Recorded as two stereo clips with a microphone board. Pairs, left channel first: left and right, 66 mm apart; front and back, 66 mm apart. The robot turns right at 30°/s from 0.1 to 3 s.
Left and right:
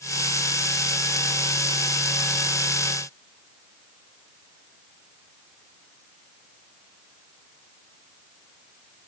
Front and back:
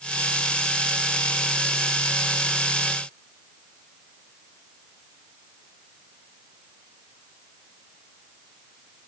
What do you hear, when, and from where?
Only background noise.